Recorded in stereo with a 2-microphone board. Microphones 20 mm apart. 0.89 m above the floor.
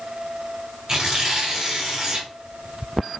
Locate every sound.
0.9 s tearing paper: 35° right (ahead or behind), 3.5 m